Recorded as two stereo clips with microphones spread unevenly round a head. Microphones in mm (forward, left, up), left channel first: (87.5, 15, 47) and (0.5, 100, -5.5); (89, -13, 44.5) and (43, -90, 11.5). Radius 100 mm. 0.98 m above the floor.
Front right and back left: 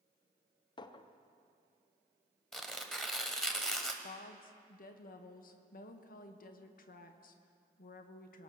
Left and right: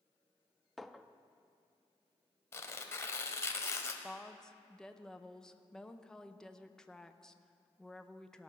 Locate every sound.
0.8 s a clink: 15° right, 0.5 m
2.5 s tearing paper: 25° left, 1.2 m
4.0 s a woman speaking: 40° right, 0.8 m